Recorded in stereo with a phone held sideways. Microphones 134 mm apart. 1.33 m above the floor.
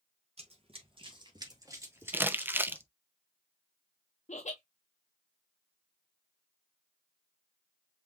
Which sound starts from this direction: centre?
Crumpling, at 2.1 s.